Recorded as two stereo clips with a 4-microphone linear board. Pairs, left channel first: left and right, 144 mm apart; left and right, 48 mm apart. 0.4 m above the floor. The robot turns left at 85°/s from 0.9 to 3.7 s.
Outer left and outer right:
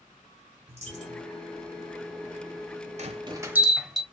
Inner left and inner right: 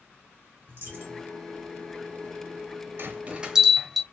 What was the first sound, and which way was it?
A dropped coin, 50° right.